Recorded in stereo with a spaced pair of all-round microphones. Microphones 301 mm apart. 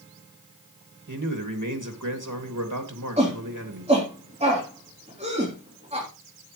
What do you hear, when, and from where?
1.1 s a man speaking: 75° right (ahead or behind), 2.5 m
3.2 s a shout: 20° right (ahead or behind), 3.5 m